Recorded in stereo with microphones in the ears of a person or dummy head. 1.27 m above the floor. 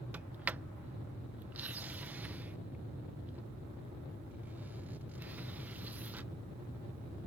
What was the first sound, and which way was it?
A sliding door, 10° right (ahead or behind).